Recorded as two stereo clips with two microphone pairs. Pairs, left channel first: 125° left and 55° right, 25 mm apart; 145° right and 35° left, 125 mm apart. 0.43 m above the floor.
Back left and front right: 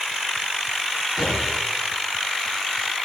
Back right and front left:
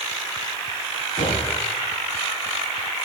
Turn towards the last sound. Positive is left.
turn(degrees=-145)